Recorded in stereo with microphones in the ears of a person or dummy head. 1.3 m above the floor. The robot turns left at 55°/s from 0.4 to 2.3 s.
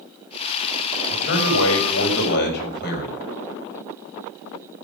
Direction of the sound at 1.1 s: 120° left.